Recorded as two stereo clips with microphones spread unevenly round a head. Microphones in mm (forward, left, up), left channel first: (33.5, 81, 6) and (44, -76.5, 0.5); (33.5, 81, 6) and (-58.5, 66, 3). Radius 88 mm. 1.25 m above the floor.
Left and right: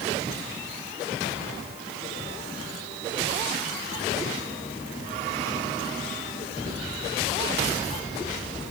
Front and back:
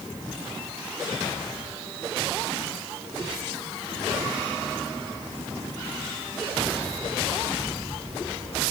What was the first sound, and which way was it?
Only background noise.